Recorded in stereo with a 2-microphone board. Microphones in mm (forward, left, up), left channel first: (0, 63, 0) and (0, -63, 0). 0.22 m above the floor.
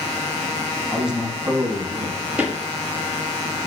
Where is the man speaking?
Centre (ahead or behind), 1.6 m; by 2.2 s 35° right (ahead or behind), 1.9 m.